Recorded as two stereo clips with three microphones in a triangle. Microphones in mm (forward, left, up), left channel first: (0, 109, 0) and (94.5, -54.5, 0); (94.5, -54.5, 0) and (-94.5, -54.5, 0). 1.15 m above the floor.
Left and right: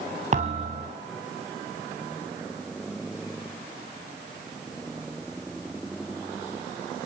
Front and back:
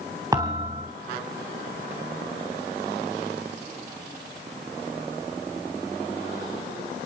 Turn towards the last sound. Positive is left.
turn(degrees=-110)